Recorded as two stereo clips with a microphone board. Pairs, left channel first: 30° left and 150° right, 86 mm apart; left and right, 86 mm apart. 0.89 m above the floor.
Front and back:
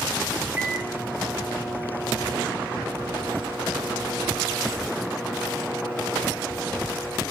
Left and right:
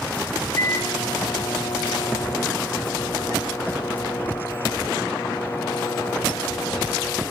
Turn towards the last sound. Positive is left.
turn(degrees=150)